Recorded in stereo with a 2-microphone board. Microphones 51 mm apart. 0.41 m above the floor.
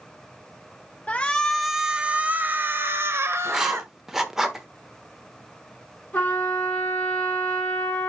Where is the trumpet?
35° left (ahead or behind), 5 m.